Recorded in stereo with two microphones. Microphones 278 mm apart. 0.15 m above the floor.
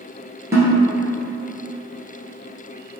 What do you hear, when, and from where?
0.5 s a snare drum: 10° right (ahead or behind), 1.5 m